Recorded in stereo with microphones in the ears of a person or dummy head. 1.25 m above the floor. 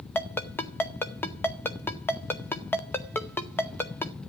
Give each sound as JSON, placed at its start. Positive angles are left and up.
{"t": 0.1, "sound": "a ringtone", "side_deg": 10, "distance_m": 1.7}